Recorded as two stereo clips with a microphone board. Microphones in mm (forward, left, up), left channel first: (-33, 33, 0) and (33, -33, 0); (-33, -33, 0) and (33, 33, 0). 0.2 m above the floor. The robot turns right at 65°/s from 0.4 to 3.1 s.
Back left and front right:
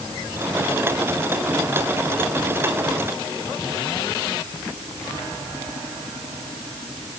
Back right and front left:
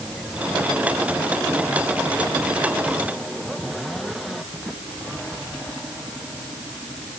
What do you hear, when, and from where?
Only background noise.